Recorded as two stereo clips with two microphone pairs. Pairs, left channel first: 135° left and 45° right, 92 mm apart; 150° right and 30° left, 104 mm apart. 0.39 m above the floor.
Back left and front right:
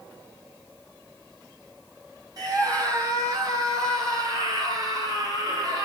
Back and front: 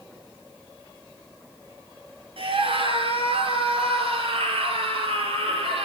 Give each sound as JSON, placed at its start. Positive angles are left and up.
{"t": 2.4, "sound": "a scream", "azimuth_deg": 5, "distance_m": 6.0}